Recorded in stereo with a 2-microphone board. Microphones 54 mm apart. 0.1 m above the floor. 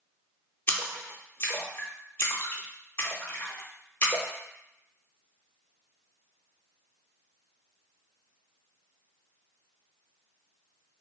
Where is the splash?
40° left (ahead or behind), 0.5 m.